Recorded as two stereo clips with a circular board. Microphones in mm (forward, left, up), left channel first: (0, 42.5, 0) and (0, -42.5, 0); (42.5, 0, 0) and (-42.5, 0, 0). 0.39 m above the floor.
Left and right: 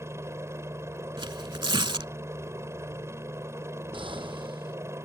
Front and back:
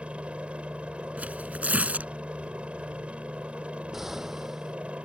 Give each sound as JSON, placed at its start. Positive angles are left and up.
{"t": 0.0, "sound": "a helicopter", "azimuth_deg": -115}
{"t": 1.2, "sound": "tearing paper", "azimuth_deg": -110}
{"t": 3.9, "sound": "an explosion", "azimuth_deg": -95}